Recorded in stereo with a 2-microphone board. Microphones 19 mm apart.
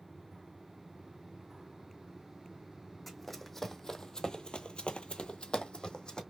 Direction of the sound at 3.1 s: 5° left (ahead or behind).